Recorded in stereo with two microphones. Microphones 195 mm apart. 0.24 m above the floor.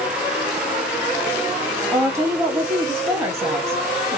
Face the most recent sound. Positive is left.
turn(degrees=-15)  # may be behind; listen again after turning